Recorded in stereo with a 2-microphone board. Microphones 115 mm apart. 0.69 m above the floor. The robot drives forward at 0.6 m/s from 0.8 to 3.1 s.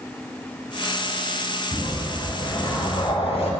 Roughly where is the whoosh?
Left.